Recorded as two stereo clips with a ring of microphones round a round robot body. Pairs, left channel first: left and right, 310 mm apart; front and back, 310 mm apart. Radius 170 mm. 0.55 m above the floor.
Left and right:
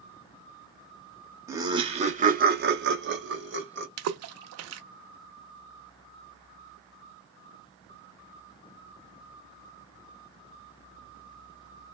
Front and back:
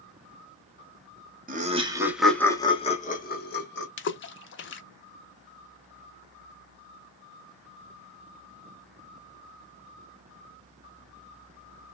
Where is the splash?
50° right, 0.6 m.